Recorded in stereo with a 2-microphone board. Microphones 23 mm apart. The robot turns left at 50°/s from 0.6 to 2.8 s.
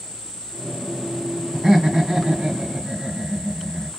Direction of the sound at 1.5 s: 35° right.